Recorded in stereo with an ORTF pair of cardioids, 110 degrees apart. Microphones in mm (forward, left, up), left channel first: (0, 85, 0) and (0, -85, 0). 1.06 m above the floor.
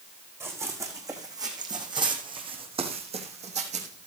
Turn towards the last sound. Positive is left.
turn(degrees=-55)